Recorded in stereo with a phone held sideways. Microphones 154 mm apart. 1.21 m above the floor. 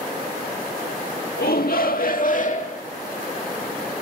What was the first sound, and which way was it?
A shout, 80° left.